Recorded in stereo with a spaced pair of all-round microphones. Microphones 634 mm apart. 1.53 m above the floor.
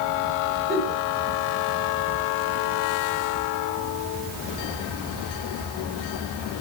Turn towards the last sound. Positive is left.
turn(degrees=-35)  # may be behind; listen again after turning